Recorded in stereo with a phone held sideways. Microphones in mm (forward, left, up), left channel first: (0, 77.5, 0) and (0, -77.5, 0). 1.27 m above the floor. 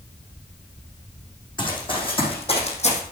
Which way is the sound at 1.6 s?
30° left (ahead or behind).